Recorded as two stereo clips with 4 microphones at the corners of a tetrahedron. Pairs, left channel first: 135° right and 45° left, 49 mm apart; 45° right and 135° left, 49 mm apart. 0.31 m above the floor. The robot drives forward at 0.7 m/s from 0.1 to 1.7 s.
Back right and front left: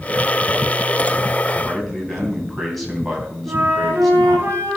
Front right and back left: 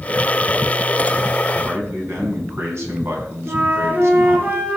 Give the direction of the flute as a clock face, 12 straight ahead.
9 o'clock.